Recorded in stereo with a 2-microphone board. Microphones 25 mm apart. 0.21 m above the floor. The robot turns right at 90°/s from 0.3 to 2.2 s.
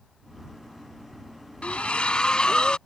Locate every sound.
1.6 s a splash: 80° left; by 2.8 s 130° left